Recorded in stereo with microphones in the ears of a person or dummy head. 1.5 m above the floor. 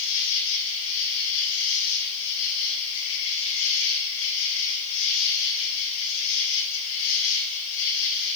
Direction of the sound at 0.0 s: 75° left (ahead or behind).